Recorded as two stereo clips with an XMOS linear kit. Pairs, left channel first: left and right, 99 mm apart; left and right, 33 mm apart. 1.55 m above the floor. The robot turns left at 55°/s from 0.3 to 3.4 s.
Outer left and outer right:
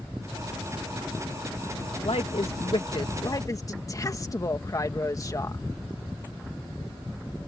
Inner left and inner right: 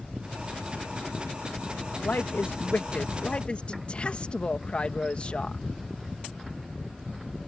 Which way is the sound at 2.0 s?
110° left.